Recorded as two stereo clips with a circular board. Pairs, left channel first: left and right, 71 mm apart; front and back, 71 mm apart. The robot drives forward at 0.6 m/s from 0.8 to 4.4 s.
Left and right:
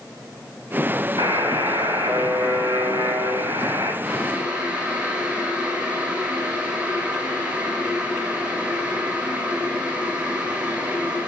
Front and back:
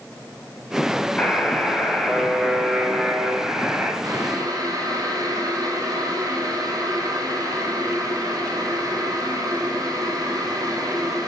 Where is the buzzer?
80° right, 3 m; by 3.9 s 110° right, 3 m.